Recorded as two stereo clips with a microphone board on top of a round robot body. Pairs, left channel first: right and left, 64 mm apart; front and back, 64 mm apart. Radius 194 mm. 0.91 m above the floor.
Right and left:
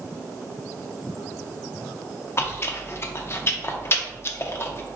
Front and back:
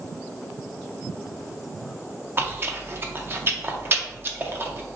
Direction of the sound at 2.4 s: 130° right.